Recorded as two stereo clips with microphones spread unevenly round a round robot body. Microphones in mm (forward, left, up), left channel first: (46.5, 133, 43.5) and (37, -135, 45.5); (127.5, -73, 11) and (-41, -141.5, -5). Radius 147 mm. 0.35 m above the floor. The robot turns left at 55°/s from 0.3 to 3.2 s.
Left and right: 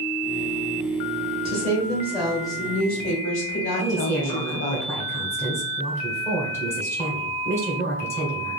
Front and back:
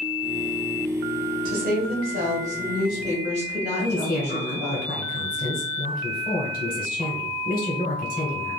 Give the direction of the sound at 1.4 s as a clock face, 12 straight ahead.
5 o'clock.